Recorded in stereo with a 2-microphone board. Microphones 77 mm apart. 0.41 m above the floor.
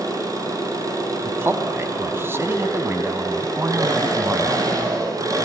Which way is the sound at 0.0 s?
50° right (ahead or behind).